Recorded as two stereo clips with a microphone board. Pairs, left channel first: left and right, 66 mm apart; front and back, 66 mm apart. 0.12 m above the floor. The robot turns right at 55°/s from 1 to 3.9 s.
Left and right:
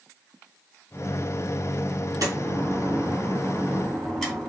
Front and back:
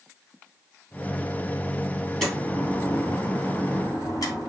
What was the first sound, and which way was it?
A door slam, 90° right.